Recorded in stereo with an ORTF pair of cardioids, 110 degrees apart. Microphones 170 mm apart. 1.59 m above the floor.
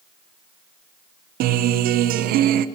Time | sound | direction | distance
1.4 | a guitar | 70° right | 0.7 m